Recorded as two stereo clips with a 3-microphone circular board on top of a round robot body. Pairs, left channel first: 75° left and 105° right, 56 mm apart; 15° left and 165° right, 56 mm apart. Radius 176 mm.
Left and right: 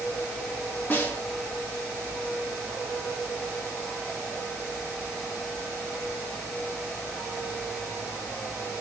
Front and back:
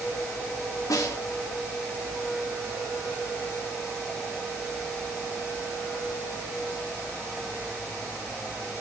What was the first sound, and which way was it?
A snare drum, 15° left.